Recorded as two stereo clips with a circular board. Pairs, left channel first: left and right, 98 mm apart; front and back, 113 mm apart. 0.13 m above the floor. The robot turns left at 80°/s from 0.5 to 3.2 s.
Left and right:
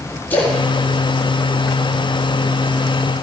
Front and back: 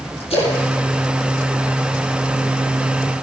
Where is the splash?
20° left, 4 m; by 2.2 s 110° right, 4 m.